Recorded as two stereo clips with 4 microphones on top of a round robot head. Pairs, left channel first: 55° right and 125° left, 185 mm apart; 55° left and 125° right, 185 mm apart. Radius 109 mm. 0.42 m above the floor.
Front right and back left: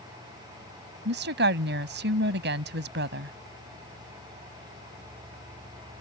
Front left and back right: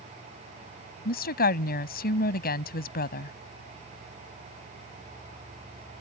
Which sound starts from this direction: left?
A woman speaking, at 1.1 s.